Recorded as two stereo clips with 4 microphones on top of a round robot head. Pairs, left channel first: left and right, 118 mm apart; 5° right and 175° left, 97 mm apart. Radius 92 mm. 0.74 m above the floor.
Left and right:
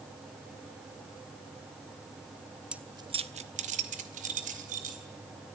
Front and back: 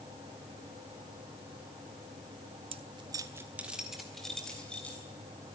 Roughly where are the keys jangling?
Behind.